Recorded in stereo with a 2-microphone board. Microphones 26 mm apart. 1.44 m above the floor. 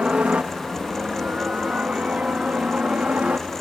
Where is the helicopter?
60° right (ahead or behind); by 3.6 s 65° right (ahead or behind).